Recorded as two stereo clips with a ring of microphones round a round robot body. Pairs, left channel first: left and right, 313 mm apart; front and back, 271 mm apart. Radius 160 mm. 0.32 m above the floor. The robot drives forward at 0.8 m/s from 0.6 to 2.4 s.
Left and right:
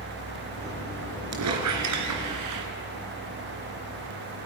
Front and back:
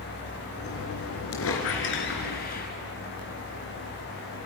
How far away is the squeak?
About 3 m.